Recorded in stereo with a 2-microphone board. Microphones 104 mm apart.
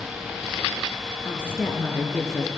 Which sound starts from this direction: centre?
A woman speaking, at 1.2 s.